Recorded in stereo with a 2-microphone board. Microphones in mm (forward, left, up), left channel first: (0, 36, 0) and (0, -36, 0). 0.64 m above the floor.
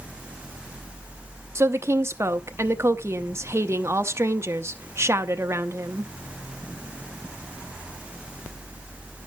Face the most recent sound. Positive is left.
turn(degrees=-35)  # may be behind; listen again after turning